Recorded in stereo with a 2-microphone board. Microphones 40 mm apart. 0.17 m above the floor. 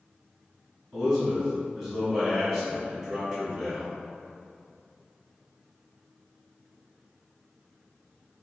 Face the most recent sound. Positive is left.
turn(degrees=-15)  # may be behind; listen again after turning